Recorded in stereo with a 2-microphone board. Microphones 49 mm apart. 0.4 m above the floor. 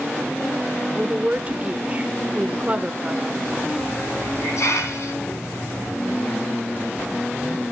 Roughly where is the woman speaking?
Right.